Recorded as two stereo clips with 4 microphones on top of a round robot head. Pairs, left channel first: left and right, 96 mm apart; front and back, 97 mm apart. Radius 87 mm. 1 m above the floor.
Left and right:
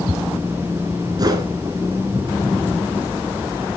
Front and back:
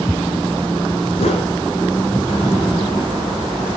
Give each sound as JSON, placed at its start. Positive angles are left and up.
{"t": 1.2, "sound": "a whoosh", "azimuth_deg": -45, "distance_m": 2.0}